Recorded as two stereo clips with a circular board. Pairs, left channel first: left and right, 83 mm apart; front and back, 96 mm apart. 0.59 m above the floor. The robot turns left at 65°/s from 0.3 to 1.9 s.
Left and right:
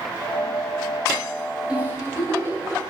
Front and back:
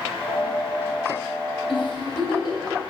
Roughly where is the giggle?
Ahead.